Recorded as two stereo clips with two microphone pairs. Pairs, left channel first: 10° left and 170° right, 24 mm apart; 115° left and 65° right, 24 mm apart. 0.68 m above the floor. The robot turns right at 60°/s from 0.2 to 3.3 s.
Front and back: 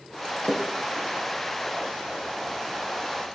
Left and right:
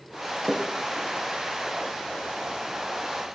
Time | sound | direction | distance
0.4 | a splash | 40° left | 3.5 m